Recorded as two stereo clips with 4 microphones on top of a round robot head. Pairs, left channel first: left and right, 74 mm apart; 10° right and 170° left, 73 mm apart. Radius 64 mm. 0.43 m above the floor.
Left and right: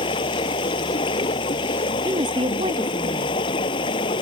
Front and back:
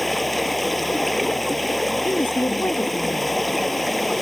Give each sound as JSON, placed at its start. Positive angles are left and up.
{"t": 0.0, "sound": "running water", "azimuth_deg": 80}
{"t": 2.0, "sound": "a woman speaking", "azimuth_deg": -75}